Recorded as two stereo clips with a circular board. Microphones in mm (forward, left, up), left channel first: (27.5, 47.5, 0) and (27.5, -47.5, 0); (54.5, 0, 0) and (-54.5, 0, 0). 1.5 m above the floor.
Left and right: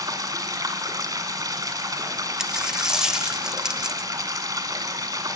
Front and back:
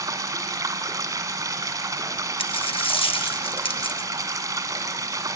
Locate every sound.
0.0 s running water: 130° right, 2 m
2.4 s a dropped coin: 10° right, 1.2 m